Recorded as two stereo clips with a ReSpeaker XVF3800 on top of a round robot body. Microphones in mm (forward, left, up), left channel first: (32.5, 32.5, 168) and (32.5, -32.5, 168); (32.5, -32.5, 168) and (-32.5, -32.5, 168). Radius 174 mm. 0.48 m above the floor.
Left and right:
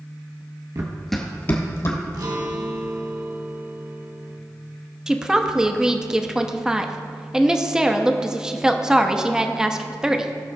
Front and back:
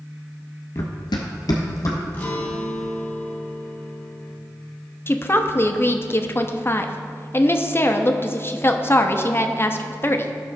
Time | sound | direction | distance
0.8 | running footsteps | 50° right | 0.7 m
2.1 | a guitar | 65° right | 1.6 m
5.1 | a woman speaking | 15° right | 1.0 m